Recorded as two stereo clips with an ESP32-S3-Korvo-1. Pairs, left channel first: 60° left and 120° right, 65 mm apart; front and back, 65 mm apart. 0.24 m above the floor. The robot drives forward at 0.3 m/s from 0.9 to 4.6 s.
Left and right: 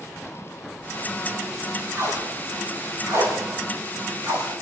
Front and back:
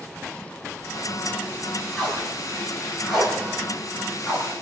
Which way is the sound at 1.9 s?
80° right.